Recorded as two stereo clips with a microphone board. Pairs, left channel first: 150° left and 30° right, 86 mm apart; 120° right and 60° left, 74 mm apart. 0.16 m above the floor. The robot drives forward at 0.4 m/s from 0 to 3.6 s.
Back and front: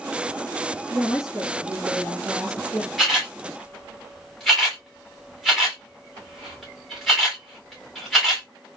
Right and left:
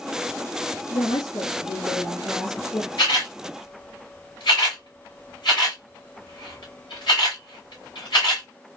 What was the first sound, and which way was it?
A woman speaking, 115° right.